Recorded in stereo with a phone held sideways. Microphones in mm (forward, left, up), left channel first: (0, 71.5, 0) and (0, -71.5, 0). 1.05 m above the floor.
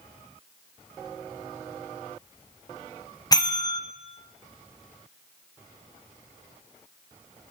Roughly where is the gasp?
I don't hear a gasp.